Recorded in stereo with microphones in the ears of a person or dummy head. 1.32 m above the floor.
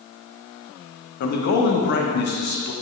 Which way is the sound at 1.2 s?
50° left (ahead or behind).